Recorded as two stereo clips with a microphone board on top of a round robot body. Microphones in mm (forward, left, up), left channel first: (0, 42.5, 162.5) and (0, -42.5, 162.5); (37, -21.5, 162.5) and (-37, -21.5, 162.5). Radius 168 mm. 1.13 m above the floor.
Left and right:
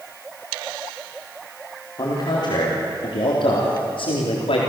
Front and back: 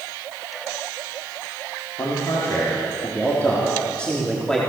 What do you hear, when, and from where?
2.0 s a man speaking: 50° left, 4 m; by 4.6 s 85° left, 4 m